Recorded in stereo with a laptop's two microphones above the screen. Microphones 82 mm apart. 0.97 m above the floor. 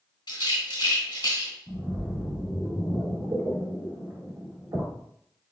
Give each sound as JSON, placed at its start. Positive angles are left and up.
{"t": 0.3, "sound": "a rattle", "side_deg": 65, "distance_m": 1.7}
{"t": 1.7, "sound": "a splash", "side_deg": -65, "distance_m": 2.0}